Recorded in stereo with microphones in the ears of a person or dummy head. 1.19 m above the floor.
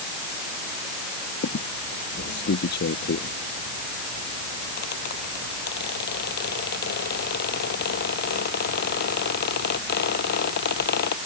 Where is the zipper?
I don't hear a zipper.